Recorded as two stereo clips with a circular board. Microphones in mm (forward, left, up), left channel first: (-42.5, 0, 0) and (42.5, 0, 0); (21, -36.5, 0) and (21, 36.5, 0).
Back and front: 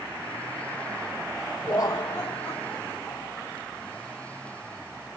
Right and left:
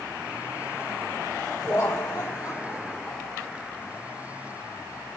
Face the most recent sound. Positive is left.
turn(degrees=-105)